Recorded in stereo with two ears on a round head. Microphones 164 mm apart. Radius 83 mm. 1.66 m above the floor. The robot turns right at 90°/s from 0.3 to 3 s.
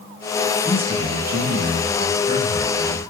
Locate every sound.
0.7 s a man speaking: 175° left, 6.5 m; by 3.1 s 30° left, 6.5 m